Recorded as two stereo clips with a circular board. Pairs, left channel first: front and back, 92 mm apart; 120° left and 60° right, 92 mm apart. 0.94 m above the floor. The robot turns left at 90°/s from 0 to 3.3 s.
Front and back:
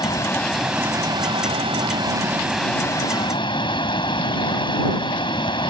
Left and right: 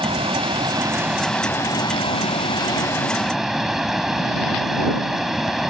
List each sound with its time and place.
0.0 s running water: 35° right; by 5.7 s 25° left